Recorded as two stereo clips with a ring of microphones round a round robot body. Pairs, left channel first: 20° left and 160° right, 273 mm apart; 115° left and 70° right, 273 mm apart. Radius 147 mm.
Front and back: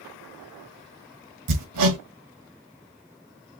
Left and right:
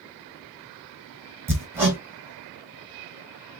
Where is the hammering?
150° right, 1.8 m.